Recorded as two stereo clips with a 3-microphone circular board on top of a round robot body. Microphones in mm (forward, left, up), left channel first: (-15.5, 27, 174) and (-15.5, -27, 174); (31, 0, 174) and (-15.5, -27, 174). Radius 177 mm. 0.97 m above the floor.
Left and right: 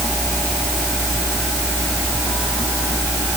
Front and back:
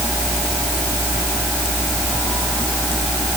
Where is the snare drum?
I don't hear a snare drum.